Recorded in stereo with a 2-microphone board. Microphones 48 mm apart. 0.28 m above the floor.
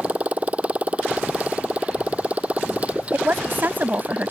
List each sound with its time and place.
0.0 s a motorcycle: 30° right (ahead or behind)
3.1 s a woman speaking: 45° right (ahead or behind)